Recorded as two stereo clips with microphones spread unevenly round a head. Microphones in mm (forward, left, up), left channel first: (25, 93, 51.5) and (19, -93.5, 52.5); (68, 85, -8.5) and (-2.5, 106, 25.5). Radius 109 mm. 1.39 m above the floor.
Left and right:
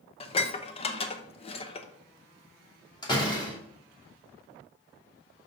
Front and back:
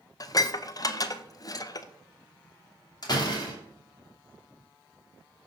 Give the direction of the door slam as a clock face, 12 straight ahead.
11 o'clock.